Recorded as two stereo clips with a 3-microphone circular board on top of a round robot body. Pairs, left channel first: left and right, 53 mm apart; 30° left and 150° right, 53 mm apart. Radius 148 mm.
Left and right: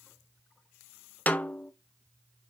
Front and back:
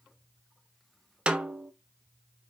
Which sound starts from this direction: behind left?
A snare drum, at 1.3 s.